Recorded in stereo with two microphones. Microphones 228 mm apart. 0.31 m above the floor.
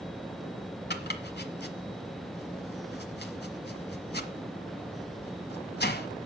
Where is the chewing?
I don't hear chewing.